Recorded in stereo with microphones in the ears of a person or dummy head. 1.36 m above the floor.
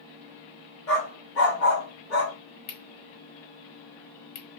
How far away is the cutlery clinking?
About 1.2 m.